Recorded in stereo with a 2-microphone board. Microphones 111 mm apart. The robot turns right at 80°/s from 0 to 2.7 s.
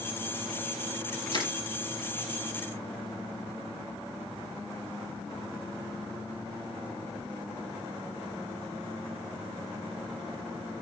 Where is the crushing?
50° left (ahead or behind), 5.5 m; by 1.5 s 35° left (ahead or behind), 5.5 m.